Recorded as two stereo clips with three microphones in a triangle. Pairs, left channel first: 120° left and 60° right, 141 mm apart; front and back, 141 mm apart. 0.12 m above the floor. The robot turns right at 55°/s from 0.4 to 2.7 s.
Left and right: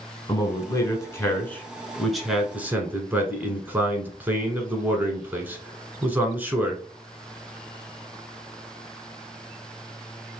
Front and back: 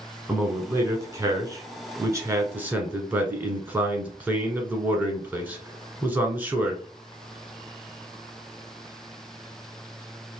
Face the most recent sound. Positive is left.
turn(degrees=-120)